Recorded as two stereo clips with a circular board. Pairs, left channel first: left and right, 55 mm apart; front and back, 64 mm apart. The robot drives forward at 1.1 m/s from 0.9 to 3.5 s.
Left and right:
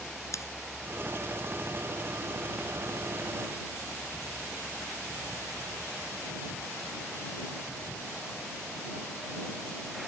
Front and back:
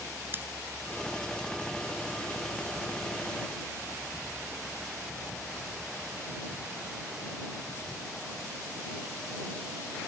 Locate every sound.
0.3 s scissors: 120° left